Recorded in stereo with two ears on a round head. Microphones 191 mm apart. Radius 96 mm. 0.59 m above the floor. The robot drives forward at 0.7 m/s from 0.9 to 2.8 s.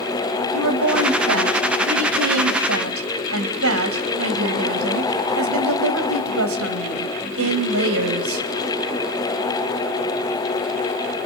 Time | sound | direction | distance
0.5 | a woman speaking | 65° right (ahead or behind) | 3.5 m